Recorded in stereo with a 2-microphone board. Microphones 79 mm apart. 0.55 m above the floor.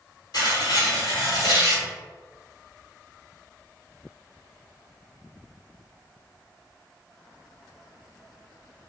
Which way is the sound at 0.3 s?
60° left (ahead or behind).